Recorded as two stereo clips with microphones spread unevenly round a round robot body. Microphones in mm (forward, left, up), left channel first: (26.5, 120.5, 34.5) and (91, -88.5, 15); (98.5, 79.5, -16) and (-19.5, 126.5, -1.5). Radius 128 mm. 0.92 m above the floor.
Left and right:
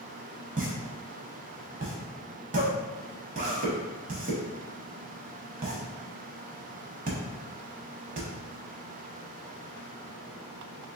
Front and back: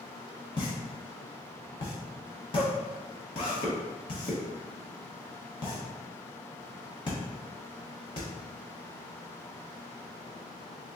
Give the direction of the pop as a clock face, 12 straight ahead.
1 o'clock.